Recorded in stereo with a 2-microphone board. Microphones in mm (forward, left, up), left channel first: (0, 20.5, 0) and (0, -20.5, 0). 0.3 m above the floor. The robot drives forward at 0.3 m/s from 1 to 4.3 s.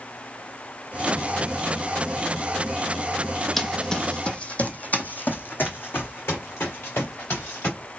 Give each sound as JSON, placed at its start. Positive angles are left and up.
{"t": 3.6, "sound": "running footsteps", "side_deg": 5, "distance_m": 0.7}